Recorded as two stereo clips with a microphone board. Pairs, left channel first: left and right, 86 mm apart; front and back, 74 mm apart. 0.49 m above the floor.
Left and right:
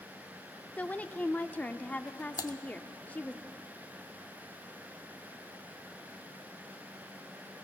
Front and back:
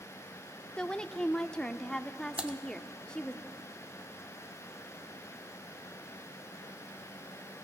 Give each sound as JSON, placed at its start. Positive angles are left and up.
{"t": 0.8, "sound": "a woman speaking", "azimuth_deg": 60, "distance_m": 0.7}
{"t": 2.4, "sound": "typing on a keyboard", "azimuth_deg": 110, "distance_m": 0.8}